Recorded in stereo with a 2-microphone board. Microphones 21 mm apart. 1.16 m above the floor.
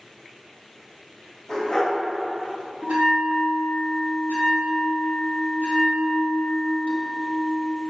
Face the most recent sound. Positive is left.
turn(degrees=-70)  # may be behind; listen again after turning